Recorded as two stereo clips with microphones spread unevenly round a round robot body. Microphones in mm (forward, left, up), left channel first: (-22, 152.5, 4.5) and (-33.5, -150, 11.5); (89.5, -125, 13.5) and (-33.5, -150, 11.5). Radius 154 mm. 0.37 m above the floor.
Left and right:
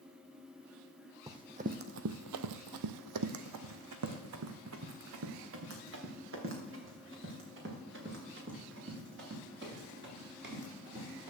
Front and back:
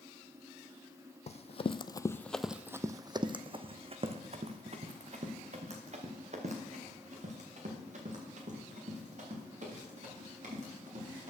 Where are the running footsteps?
15° right, 0.8 m; by 11.3 s 145° right, 5.5 m.